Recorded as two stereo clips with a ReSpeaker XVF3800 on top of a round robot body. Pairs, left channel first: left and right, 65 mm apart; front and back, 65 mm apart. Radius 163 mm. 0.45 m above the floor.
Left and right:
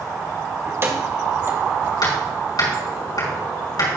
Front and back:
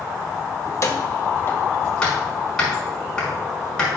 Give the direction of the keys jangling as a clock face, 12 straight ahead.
1 o'clock.